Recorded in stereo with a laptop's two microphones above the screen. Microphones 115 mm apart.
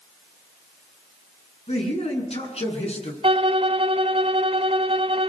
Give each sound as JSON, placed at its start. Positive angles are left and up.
{"t": 1.7, "sound": "a man speaking", "side_deg": 65, "distance_m": 9.0}
{"t": 3.2, "sound": "a violin", "side_deg": -55, "distance_m": 1.3}